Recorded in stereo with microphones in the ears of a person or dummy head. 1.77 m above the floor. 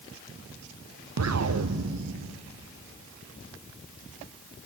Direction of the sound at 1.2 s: 70° right (ahead or behind).